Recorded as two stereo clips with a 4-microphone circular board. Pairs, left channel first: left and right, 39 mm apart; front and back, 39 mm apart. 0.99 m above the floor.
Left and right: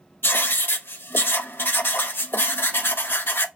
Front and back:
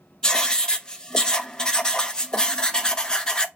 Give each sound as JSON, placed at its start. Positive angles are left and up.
{"t": 0.2, "sound": "writing", "azimuth_deg": 70, "distance_m": 0.5}